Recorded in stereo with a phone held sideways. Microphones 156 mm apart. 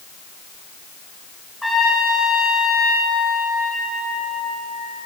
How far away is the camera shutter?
I don't hear a camera shutter.